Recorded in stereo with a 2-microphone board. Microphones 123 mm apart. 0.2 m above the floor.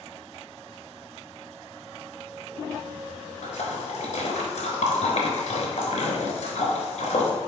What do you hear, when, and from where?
3.4 s a splash: 70° left (ahead or behind), 0.9 m